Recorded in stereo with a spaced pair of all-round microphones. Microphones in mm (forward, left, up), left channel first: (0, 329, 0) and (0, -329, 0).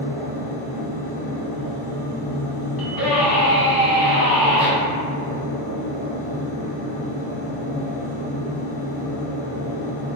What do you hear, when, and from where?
0.0 s a machine running: 25° left (ahead or behind), 1.3 m
2.8 s a scream: 35° left (ahead or behind), 0.8 m